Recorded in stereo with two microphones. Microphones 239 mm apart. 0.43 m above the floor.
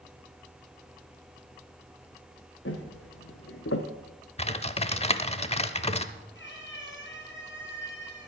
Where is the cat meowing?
50° left (ahead or behind), 5 m.